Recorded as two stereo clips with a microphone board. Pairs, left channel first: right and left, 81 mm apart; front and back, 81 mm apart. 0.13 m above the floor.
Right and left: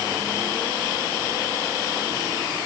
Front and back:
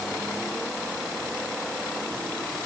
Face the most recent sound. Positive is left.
No sound to turn to.